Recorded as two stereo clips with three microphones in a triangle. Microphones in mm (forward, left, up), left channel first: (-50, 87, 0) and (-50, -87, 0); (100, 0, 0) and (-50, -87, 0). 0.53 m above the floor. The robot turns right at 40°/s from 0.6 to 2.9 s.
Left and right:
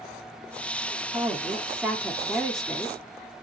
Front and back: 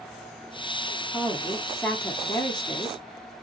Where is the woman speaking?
50° right, 1.0 m; by 3.3 s 20° left, 1.0 m.